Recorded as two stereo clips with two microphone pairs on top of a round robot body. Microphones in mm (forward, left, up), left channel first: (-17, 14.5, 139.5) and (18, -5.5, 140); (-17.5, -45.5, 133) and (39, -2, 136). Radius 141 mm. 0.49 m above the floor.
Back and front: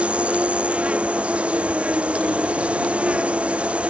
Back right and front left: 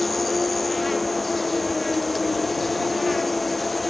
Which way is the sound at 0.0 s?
60° right.